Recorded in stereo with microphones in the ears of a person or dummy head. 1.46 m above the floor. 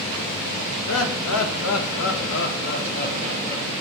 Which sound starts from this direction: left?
Laughter, at 0.9 s.